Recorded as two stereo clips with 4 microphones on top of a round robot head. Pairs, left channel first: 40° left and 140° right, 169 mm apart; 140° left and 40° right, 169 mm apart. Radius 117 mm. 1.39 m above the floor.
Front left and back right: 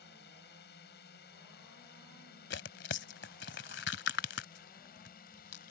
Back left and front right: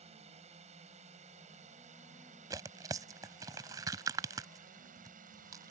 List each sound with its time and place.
0.0 s a drone: 15° left; by 5.7 s straight ahead
2.5 s tearing paper: 25° left